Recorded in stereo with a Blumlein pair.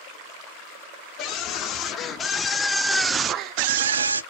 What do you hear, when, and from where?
1.2 s a scream: 35° left, 1.3 m; by 4.2 s 75° right, 0.7 m